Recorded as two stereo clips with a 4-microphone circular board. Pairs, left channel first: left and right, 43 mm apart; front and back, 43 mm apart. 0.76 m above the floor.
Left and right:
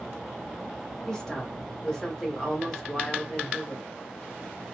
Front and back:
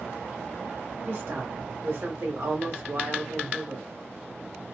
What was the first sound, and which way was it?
A woman speaking, 160° left.